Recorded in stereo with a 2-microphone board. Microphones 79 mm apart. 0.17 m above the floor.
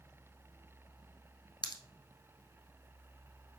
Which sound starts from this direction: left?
A pop, at 1.6 s.